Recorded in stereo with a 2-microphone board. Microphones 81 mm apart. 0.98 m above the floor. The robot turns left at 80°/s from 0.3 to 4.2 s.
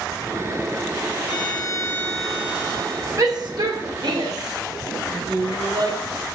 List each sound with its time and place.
1.2 s a violin: 80° left, 2.0 m; by 3.1 s 65° right, 2.0 m
3.2 s a shout: 45° right (ahead or behind), 3.5 m; by 6.0 s 55° right (ahead or behind), 3.5 m